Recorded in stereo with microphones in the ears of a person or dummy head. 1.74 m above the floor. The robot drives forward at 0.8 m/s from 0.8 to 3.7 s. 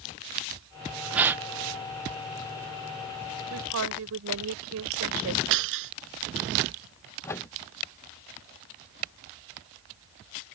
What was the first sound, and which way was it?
A gasp, 10° right (ahead or behind).